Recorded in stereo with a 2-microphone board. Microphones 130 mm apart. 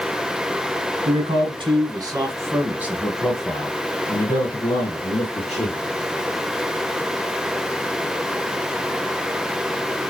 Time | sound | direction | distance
1.1 | a man speaking | 45° right (ahead or behind) | 2.0 m